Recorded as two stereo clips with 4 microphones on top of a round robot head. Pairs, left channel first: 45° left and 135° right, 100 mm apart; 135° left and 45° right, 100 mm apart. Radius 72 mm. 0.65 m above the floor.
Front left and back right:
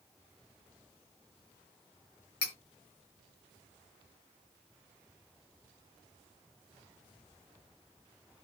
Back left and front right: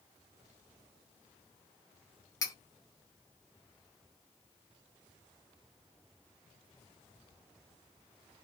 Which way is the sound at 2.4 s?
80° left.